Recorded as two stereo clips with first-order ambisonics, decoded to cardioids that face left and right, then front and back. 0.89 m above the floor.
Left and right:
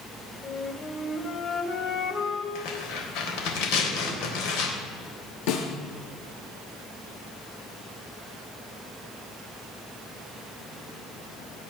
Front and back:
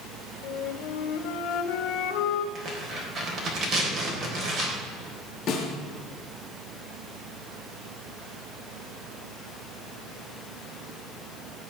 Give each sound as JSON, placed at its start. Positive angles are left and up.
{"t": 0.4, "sound": "a flute", "azimuth_deg": 30, "distance_m": 1.5}
{"t": 2.5, "sound": "tearing paper", "azimuth_deg": 120, "distance_m": 3.5}
{"t": 5.5, "sound": "a snare drum", "azimuth_deg": 65, "distance_m": 4.5}